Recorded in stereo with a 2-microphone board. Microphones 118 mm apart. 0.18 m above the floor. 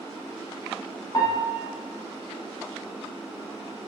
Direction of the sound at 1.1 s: 35° left (ahead or behind).